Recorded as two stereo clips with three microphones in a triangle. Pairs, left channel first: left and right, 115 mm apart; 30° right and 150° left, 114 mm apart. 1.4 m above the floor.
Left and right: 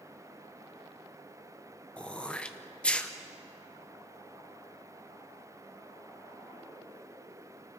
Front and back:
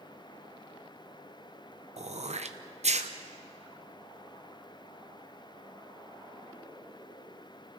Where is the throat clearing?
170° left, 0.9 m.